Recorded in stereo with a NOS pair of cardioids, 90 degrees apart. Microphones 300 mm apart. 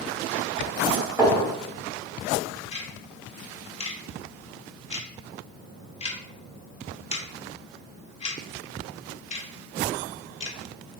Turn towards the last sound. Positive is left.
turn(degrees=20)